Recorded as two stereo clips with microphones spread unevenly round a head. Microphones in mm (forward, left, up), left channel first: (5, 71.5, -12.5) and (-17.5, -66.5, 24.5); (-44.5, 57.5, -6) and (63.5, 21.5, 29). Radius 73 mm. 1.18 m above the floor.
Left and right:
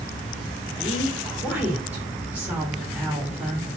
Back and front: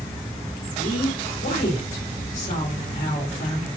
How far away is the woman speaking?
About 4 m.